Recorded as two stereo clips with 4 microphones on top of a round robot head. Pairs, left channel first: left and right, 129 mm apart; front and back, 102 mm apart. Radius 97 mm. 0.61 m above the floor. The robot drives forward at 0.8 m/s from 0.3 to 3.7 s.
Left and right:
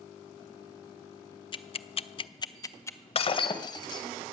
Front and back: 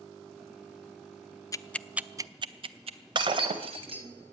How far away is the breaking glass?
About 1.1 m.